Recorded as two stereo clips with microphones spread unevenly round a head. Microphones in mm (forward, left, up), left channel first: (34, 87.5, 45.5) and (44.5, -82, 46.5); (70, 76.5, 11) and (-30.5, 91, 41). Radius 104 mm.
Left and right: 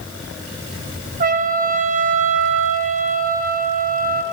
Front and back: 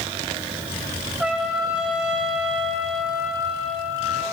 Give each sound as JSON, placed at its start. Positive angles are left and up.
{"t": 1.2, "sound": "a trumpet", "azimuth_deg": -90, "distance_m": 0.7}